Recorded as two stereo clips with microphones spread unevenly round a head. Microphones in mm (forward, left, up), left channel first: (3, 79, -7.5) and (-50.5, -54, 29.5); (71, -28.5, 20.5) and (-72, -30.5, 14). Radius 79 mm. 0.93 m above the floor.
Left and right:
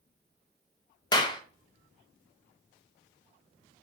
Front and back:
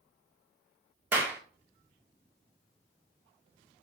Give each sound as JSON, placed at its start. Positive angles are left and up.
{"t": 1.1, "sound": "a clap", "azimuth_deg": 110, "distance_m": 0.6}